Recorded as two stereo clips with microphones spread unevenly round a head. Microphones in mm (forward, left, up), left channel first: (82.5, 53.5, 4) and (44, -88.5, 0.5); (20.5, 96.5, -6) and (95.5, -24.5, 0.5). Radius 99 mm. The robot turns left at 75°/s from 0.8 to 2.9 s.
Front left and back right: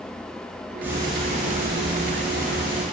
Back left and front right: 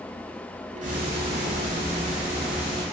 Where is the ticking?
25° right, 1.4 m; by 2.8 s 175° right, 1.4 m.